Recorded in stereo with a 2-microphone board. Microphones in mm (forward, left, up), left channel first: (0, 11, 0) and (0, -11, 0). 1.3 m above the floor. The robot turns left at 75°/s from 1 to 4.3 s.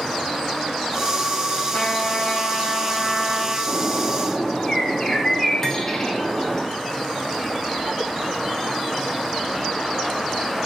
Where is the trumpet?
135° left, 4 m; by 3.6 s 5° right, 4 m.